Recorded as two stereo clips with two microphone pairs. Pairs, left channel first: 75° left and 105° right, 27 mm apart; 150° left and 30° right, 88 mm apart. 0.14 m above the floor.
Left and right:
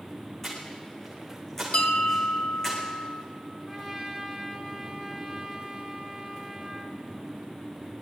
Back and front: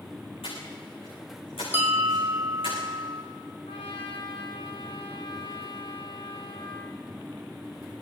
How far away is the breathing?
About 9.5 m.